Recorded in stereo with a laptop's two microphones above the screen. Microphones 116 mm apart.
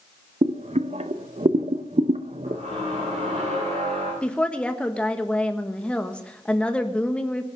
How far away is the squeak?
About 7.5 m.